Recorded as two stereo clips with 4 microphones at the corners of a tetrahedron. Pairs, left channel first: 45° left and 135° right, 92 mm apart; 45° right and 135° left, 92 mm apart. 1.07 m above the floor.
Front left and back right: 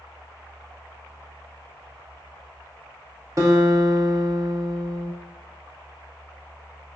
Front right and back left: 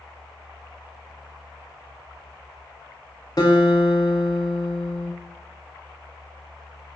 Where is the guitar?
85° right, 1.4 m.